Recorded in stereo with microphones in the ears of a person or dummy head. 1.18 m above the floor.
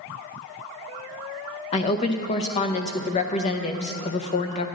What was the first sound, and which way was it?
A woman speaking, 35° left (ahead or behind).